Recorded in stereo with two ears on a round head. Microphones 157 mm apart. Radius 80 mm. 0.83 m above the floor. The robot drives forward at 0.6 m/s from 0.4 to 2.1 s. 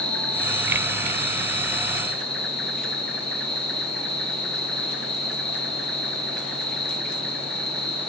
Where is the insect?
5° left (ahead or behind), 2 m.